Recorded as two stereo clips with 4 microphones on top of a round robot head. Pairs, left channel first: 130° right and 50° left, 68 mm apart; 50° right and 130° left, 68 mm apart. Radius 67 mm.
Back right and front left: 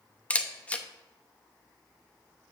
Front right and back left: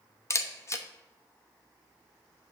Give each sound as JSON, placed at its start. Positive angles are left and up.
{"t": 0.3, "sound": "a camera shutter", "azimuth_deg": -65, "distance_m": 0.9}